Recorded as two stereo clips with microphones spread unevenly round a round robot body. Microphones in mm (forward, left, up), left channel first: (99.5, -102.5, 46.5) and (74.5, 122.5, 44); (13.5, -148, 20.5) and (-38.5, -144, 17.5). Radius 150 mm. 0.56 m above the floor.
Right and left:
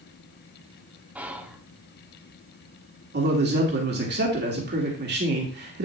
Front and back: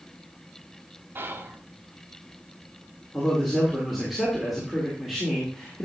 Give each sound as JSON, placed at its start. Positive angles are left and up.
{"t": 1.1, "sound": "whispering", "azimuth_deg": 180, "distance_m": 1.0}
{"t": 3.1, "sound": "a man speaking", "azimuth_deg": 90, "distance_m": 1.9}